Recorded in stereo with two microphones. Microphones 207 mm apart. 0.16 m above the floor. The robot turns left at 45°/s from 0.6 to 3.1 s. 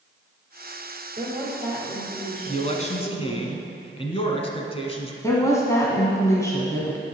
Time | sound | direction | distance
1.2 | a woman speaking | 140° right | 3 m
2.5 | a man speaking | 35° left (ahead or behind) | 1.2 m
5.2 | a woman speaking | 15° left (ahead or behind) | 1.3 m